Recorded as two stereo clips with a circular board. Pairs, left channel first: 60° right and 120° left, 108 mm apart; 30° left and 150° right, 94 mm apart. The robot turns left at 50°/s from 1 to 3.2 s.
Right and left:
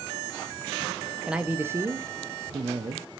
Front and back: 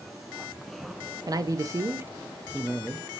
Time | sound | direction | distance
1.3 | a man speaking | 160° right | 0.5 m